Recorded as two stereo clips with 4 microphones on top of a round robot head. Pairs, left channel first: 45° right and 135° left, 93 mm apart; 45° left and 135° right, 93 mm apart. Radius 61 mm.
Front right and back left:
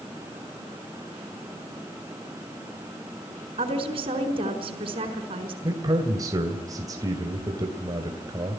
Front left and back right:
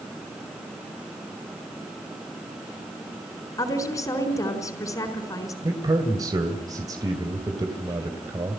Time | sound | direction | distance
3.6 | a woman speaking | 105° left | 4.5 m
5.6 | a man speaking | straight behind | 2.5 m